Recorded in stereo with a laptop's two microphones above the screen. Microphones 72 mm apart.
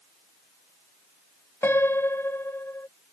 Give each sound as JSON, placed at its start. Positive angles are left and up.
{"t": 1.6, "sound": "a piano", "side_deg": 35}